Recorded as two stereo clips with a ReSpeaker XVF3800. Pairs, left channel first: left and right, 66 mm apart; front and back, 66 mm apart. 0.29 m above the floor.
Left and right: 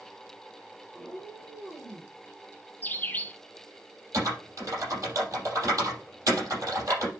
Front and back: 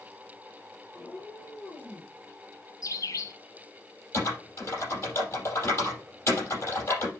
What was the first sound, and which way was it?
A cat meowing, 25° right.